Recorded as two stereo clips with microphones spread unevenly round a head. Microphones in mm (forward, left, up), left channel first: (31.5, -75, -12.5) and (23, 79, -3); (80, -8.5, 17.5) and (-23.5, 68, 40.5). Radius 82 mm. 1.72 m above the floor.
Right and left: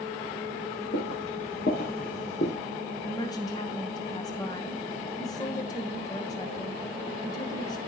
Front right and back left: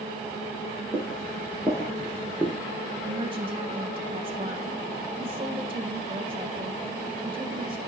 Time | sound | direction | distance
0.9 | footsteps | 110° right | 4 m
3.0 | a woman speaking | 155° right | 1.3 m